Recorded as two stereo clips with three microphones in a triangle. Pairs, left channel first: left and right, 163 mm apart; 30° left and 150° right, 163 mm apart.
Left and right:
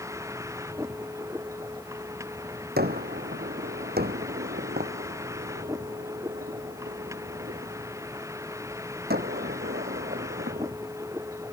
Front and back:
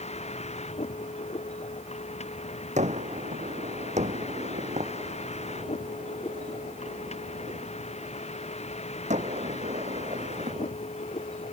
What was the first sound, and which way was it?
A vehicle, 20° right.